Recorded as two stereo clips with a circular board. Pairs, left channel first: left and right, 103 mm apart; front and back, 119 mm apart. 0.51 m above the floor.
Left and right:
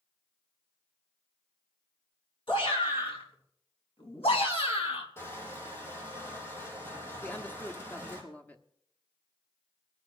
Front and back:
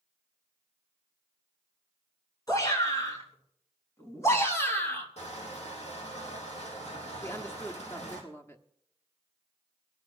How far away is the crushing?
About 4 m.